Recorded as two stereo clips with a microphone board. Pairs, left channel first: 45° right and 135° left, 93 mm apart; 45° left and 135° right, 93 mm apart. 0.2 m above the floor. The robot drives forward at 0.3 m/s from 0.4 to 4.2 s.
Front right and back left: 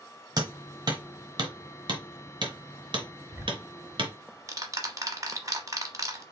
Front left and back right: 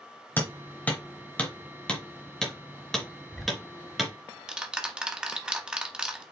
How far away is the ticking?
About 0.8 m.